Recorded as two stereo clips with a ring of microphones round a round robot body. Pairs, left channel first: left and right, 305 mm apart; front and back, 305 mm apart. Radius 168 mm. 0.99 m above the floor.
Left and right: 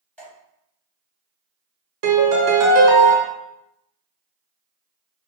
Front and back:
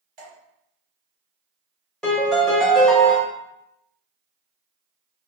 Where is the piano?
90° right, 0.8 m.